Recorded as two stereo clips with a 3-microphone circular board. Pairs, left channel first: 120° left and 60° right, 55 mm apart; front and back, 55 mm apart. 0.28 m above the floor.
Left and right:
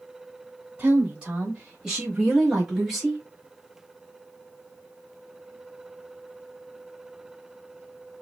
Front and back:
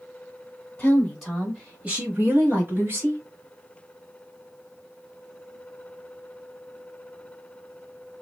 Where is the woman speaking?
45° right, 1.1 m; by 3.2 s 150° right, 1.7 m.